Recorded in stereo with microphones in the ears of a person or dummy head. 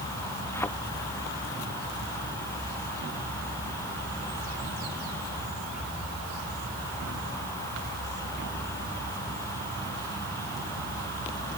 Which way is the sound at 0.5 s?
10° left (ahead or behind).